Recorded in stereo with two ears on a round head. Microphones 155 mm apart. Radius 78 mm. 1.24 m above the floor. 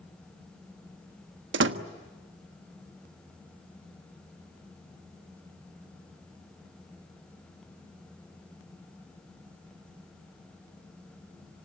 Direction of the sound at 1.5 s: 75° right (ahead or behind).